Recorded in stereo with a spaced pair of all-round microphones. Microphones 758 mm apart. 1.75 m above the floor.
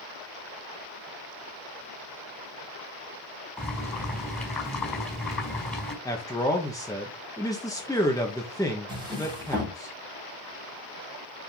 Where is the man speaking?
5° left (ahead or behind), 1.4 m.